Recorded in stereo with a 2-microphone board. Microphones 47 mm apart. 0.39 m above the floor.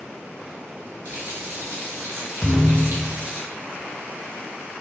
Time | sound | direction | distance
1.1 | a running tap | 65° right (ahead or behind) | 2 m
2.4 | a thud | 5° left (ahead or behind) | 0.8 m